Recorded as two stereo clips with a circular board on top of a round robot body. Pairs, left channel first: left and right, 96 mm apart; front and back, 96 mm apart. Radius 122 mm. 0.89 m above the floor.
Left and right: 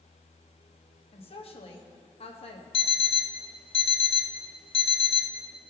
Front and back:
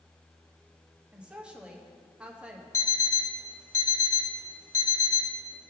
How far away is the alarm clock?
About 0.6 m.